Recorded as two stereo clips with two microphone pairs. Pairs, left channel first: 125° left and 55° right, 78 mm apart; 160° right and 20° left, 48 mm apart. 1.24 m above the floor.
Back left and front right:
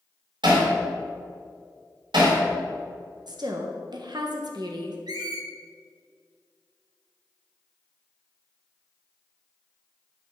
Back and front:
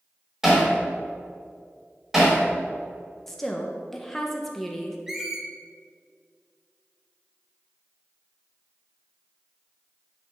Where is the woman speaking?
75° right, 1.0 m.